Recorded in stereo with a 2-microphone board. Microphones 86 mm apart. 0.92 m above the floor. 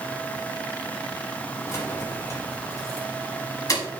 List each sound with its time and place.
1.7 s keys jangling: 35° left (ahead or behind), 5.5 m; by 3.8 s 45° left (ahead or behind), 6 m